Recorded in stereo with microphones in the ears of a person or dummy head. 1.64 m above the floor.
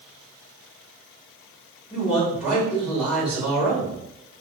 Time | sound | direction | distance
1.9 | a man speaking | 5° right (ahead or behind) | 1.7 m